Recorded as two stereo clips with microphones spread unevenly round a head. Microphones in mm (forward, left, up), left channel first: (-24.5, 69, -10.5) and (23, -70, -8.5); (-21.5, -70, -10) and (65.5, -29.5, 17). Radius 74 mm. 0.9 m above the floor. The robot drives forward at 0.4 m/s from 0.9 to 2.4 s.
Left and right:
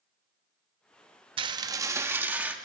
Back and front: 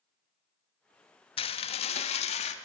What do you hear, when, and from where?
1.4 s dishes clattering: 130° right, 0.6 m; by 2.5 s 150° right, 0.9 m